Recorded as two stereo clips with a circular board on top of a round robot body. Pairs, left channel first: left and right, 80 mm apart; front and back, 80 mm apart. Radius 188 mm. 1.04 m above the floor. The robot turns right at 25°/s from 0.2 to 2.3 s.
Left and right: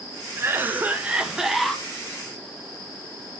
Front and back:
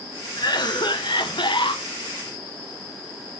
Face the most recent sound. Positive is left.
turn(degrees=15)